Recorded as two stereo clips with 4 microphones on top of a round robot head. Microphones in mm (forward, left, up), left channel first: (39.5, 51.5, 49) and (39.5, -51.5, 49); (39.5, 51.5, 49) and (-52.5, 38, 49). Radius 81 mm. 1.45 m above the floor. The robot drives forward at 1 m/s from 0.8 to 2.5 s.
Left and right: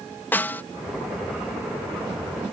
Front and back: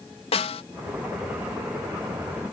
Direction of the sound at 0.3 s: 20° left.